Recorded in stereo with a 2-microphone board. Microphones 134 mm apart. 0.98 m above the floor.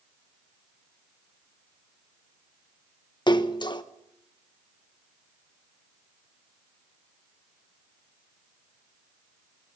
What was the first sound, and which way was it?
A splash, 35° left (ahead or behind).